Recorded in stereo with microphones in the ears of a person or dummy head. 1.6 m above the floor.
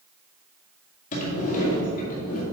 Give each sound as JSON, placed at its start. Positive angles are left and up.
{"t": 1.1, "sound": "a sliding door", "side_deg": 45, "distance_m": 2.0}